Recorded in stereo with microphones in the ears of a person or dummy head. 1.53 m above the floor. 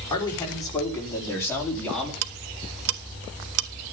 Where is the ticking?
80° right, 1.3 m.